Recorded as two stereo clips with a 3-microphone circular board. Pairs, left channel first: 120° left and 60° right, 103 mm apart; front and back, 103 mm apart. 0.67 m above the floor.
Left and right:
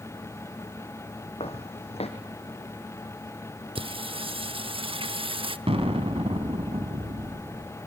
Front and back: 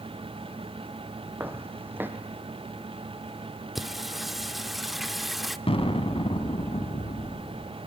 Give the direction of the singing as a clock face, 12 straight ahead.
3 o'clock.